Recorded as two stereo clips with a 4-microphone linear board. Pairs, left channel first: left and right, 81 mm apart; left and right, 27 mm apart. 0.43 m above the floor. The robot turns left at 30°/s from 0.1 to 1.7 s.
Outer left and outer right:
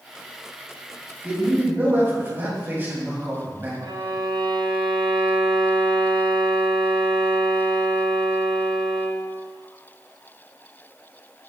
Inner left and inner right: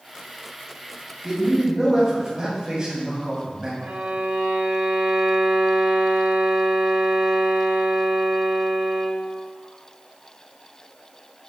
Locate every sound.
1.2 s a man speaking: 15° right (ahead or behind), 2.5 m; by 3.7 s 30° right (ahead or behind), 2.5 m
3.8 s a violin: 65° right (ahead or behind), 0.7 m